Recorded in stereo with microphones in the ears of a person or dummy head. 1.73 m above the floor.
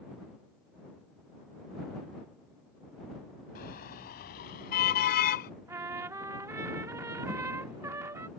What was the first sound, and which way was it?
A car horn, 55° left (ahead or behind).